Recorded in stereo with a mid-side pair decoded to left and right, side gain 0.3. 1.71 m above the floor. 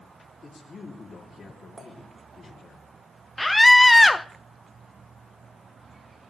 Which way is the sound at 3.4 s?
20° left.